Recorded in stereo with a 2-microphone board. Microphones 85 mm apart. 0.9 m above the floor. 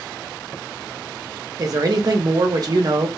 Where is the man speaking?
45° right (ahead or behind), 0.8 m.